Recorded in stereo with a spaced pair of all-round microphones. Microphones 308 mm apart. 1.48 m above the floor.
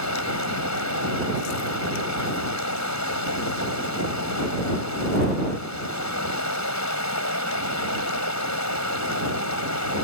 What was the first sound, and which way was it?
Running water, 65° left (ahead or behind).